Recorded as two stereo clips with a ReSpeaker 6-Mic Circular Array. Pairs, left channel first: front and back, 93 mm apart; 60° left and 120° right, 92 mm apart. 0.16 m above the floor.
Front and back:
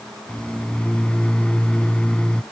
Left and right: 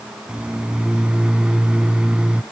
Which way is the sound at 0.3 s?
60° right.